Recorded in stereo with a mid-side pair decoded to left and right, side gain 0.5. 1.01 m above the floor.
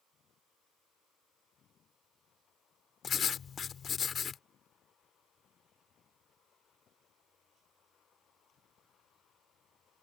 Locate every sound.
3.0 s writing: 45° left